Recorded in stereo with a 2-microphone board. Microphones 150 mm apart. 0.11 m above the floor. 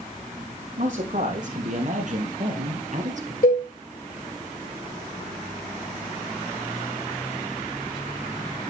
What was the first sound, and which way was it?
A man speaking, 55° right (ahead or behind).